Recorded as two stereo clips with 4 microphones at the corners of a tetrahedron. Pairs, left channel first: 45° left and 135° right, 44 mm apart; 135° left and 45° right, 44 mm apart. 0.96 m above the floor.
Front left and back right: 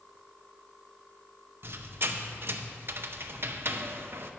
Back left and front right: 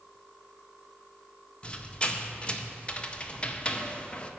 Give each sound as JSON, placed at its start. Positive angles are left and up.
{"t": 1.6, "sound": "a squeak", "azimuth_deg": -165, "distance_m": 0.6}